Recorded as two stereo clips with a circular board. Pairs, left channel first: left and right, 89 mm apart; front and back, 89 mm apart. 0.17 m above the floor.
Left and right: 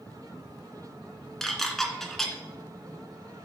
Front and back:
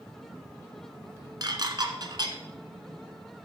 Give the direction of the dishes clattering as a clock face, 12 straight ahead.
6 o'clock.